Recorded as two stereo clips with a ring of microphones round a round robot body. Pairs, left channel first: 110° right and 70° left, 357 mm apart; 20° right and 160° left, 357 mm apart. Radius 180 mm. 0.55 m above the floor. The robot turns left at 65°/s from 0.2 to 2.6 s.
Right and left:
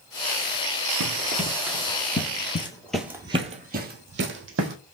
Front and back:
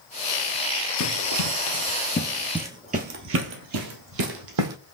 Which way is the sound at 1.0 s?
30° left.